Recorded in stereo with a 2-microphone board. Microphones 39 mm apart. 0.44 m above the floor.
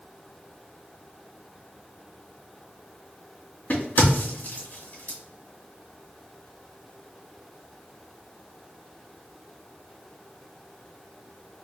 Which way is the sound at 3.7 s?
45° left (ahead or behind).